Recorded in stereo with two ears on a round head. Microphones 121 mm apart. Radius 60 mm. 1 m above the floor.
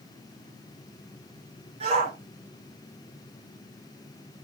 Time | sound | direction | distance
1.8 | a shout | 50° right (ahead or behind) | 4.5 m